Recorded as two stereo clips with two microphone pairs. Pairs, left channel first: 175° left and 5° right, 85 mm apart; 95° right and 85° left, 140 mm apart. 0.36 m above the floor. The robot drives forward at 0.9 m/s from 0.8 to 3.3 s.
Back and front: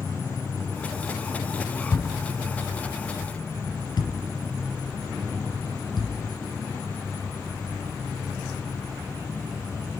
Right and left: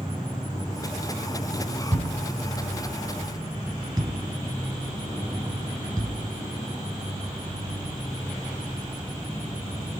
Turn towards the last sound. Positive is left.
turn(degrees=150)